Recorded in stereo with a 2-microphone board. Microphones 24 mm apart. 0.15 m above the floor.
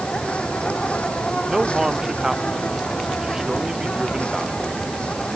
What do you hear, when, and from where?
0.0 s an insect: 55° left (ahead or behind)
1.5 s a man speaking: 20° right (ahead or behind)